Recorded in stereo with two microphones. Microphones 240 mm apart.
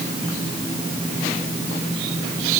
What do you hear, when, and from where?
Only background noise.